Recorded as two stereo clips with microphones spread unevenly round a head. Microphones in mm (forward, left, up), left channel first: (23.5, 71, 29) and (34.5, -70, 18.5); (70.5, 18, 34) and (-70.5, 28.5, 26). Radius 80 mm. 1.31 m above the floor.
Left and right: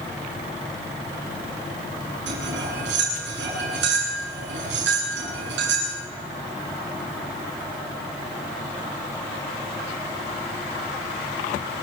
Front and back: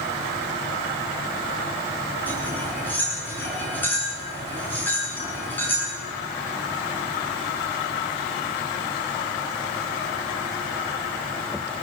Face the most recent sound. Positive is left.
turn(degrees=-85)